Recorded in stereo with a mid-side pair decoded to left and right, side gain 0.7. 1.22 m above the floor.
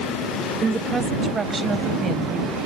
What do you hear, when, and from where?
0.6 s a woman speaking: 25° right; by 2.6 s 20° right